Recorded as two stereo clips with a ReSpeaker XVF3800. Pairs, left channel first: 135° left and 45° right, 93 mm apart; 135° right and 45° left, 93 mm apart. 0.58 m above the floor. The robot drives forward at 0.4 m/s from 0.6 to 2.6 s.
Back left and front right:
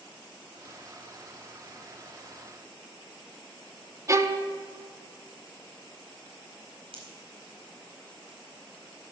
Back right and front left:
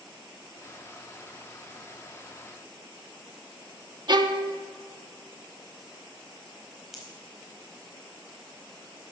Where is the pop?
40° right, 4 m.